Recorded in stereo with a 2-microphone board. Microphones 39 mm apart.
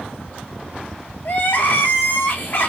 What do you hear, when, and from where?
1.2 s crying: 60° left (ahead or behind), 1.2 m